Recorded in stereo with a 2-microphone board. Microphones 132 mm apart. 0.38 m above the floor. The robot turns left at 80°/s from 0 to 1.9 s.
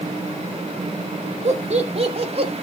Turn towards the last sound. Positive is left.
turn(degrees=-50)  # may be behind; listen again after turning